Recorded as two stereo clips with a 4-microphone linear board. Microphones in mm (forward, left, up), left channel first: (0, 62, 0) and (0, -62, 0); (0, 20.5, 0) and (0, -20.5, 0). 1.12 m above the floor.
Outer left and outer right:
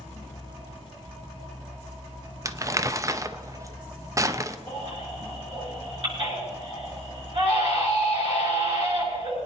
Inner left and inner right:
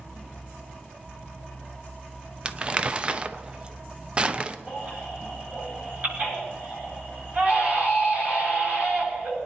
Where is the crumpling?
25° right (ahead or behind), 0.6 m.